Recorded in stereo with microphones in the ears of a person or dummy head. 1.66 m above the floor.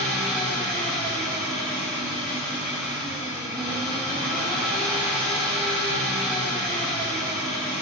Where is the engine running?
5° left (ahead or behind), 1.4 m.